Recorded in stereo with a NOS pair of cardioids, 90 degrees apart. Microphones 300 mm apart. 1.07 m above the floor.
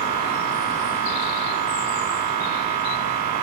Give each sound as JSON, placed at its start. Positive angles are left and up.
{"t": 0.0, "sound": "a machine running", "azimuth_deg": -70, "distance_m": 0.8}